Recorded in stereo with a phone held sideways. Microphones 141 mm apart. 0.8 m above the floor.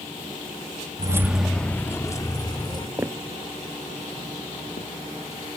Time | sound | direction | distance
1.0 | keys jangling | 30° right (ahead or behind) | 0.7 m
3.0 | footsteps | 20° right (ahead or behind) | 0.8 m